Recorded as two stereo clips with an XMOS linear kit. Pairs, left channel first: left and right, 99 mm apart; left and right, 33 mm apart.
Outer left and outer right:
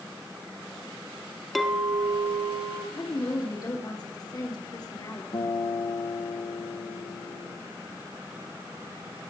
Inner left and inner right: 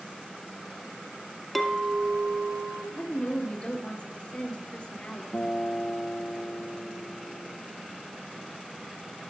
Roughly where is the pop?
No pop in this recording.